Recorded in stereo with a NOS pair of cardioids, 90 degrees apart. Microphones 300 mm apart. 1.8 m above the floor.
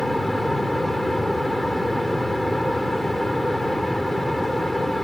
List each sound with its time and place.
0.0 s a fan: straight ahead